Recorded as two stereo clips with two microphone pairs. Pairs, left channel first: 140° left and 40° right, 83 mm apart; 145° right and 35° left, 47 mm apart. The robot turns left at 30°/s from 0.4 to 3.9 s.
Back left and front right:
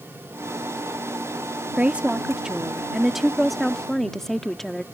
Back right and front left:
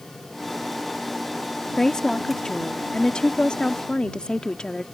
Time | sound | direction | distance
1.8 | a woman speaking | 85° right | ?